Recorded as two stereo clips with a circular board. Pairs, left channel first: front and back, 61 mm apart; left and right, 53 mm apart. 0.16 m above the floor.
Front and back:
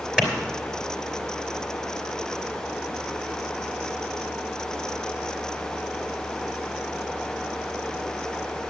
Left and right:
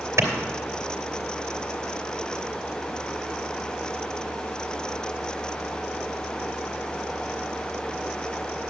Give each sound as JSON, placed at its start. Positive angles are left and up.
{"t": 0.2, "sound": "a clap", "azimuth_deg": -105, "distance_m": 2.5}